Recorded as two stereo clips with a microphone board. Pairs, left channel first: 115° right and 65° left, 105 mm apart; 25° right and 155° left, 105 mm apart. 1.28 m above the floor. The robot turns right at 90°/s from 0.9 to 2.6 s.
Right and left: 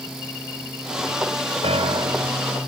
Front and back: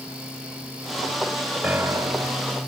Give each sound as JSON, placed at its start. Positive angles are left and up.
{"t": 1.6, "sound": "a piano", "azimuth_deg": 80}